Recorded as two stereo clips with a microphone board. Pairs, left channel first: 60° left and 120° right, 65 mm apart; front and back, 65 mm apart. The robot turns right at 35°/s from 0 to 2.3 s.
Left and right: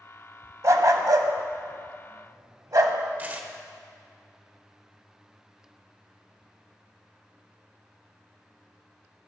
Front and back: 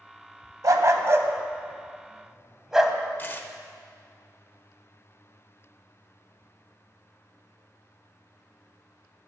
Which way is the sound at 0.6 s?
155° right.